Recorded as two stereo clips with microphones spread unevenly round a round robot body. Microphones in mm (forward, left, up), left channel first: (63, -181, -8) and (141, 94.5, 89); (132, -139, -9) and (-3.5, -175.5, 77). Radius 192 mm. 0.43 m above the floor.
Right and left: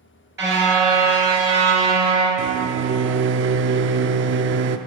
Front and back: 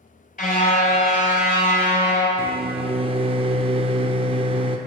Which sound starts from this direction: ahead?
A car horn, at 0.4 s.